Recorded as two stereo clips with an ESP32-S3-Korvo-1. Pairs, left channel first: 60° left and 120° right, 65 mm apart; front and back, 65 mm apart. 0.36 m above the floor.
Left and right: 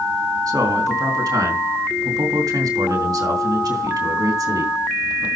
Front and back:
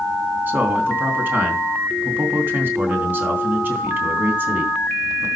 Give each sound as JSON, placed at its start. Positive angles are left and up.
{"t": 0.5, "sound": "a man speaking", "azimuth_deg": -120, "distance_m": 3.0}